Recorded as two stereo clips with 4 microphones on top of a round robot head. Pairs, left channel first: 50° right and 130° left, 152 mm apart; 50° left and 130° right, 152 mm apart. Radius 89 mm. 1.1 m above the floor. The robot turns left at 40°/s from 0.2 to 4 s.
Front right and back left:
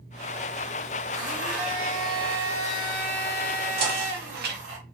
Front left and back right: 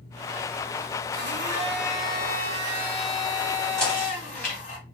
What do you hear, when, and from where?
1.1 s a blender: 155° right, 1.4 m; by 4.8 s 90° left, 1.4 m
3.8 s knocking: 135° left, 1.0 m; by 4.6 s 130° left, 1.0 m